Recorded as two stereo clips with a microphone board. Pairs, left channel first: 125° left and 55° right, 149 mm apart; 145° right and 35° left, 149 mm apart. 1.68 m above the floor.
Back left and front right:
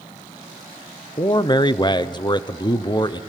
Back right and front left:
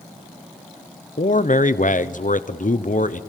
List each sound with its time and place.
1.2 s a man speaking: 175° right, 1.0 m